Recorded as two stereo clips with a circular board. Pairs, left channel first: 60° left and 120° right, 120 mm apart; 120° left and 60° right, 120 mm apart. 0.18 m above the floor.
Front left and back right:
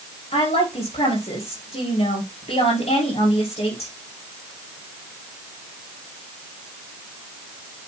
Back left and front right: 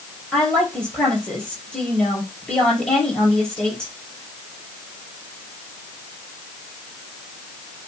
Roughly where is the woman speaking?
Ahead left.